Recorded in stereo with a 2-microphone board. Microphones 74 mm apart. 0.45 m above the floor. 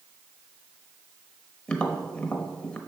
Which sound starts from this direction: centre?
Tapping, at 1.7 s.